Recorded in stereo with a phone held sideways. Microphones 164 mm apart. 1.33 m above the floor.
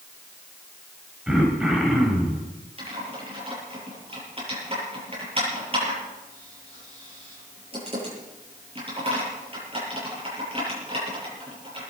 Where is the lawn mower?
I don't hear a lawn mower.